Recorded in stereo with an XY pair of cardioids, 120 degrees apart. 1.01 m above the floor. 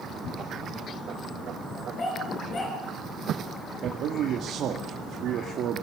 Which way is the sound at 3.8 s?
60° right.